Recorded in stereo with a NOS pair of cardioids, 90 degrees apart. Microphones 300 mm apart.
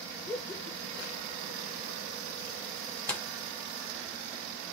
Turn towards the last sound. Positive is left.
turn(degrees=5)